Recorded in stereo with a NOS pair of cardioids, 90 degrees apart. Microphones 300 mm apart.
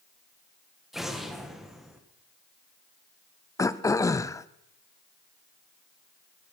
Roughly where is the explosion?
Ahead.